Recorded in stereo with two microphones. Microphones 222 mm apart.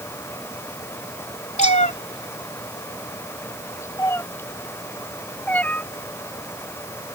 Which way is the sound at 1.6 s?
30° left (ahead or behind).